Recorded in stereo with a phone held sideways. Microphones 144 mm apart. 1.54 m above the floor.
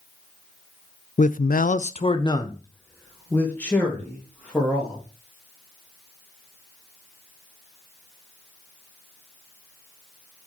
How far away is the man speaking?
About 0.6 m.